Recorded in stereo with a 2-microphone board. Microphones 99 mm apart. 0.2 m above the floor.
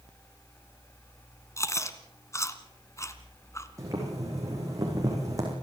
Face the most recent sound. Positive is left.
turn(degrees=-35)  # may be behind; listen again after turning